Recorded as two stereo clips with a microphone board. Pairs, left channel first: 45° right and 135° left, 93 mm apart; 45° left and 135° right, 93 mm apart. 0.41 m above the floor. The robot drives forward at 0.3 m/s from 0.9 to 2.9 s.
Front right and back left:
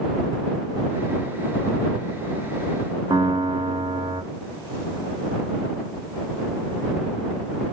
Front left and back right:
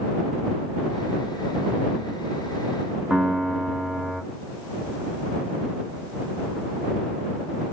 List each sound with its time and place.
3.1 s a piano: 140° left, 0.7 m